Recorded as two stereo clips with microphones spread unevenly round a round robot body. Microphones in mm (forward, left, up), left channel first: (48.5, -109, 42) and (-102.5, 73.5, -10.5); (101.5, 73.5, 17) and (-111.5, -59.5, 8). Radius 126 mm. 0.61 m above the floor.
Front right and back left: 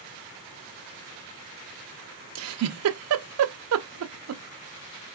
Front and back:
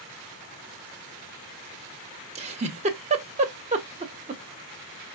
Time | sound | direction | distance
2.4 | a giggle | 145° left | 0.8 m